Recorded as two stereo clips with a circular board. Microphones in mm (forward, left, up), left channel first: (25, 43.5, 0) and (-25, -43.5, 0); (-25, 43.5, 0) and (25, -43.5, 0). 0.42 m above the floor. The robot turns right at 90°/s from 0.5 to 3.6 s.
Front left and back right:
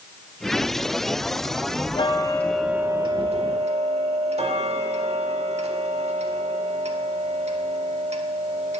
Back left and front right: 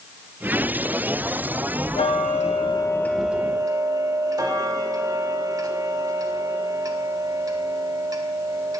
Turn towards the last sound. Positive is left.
turn(degrees=-115)